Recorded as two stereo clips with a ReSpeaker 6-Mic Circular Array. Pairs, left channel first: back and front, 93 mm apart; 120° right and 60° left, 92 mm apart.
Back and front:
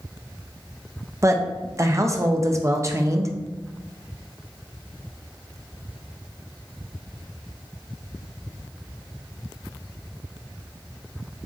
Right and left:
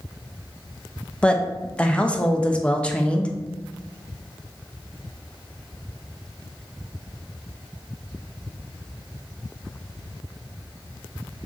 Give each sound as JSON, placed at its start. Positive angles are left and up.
{"t": 1.2, "sound": "a woman speaking", "azimuth_deg": -45, "distance_m": 0.5}